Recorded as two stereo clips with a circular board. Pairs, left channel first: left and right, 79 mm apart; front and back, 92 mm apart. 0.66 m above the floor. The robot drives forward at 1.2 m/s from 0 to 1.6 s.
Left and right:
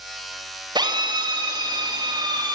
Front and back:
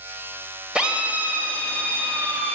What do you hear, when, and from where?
0.8 s a drill: 100° right, 3.5 m; by 2.5 s 115° right, 4 m